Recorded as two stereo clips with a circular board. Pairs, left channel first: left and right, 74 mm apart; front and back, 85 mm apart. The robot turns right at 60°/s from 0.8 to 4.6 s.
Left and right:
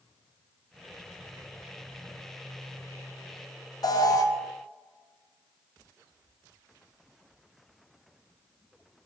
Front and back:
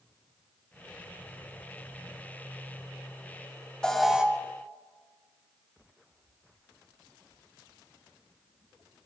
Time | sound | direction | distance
3.8 | an alarm | 80° left | 0.8 m